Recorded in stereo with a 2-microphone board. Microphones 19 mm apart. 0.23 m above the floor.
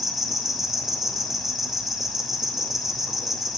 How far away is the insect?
About 4.5 m.